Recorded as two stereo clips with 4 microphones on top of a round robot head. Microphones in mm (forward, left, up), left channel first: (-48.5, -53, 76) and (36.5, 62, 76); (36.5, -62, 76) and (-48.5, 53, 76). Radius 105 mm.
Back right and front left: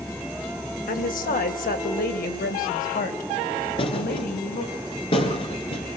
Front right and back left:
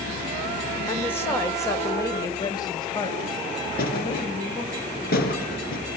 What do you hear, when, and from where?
0.9 s a woman speaking: 130° right, 2.5 m; by 4.8 s 105° right, 4 m
3.8 s a thud: 70° right, 3 m